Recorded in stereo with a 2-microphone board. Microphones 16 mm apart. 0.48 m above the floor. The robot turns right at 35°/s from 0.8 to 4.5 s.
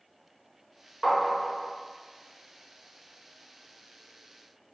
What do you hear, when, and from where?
1.0 s tapping: 5° left (ahead or behind), 0.8 m; by 1.7 s 15° right (ahead or behind), 0.8 m